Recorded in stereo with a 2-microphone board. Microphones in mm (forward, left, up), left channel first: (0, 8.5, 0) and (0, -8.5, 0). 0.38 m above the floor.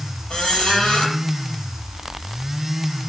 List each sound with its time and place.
0.3 s a squeak: 85° left, 6 m